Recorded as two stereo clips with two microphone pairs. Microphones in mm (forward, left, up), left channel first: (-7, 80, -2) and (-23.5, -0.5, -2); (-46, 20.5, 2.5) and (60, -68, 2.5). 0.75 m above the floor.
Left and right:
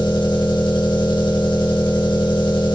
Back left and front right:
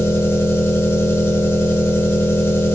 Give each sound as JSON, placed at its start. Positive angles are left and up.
{"t": 0.0, "sound": "an engine running", "azimuth_deg": 65, "distance_m": 2.0}